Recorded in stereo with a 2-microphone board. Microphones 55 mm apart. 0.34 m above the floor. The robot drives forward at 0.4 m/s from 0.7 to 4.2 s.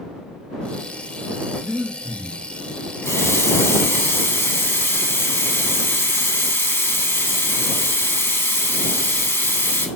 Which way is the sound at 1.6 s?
35° left (ahead or behind).